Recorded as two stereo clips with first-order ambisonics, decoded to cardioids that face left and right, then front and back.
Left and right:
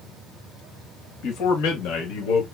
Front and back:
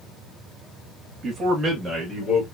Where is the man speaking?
120° left, 1.4 m; by 2.5 s 95° left, 1.9 m.